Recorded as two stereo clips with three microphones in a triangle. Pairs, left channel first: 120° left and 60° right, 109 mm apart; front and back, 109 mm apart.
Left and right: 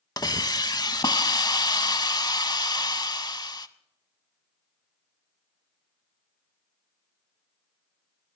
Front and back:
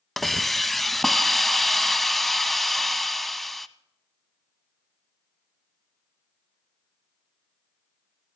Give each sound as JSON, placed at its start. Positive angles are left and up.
{"t": 0.2, "sound": "a hiss", "azimuth_deg": 85, "distance_m": 0.6}